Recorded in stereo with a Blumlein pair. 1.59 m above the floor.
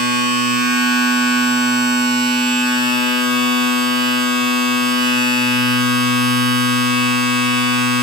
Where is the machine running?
5° right, 9.5 m.